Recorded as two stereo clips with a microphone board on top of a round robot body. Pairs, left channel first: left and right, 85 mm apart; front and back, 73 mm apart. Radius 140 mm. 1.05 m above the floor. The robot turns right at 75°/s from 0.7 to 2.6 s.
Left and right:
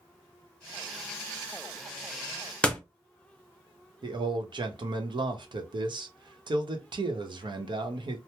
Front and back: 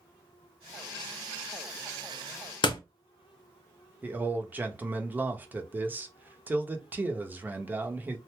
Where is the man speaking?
115° right, 0.9 m.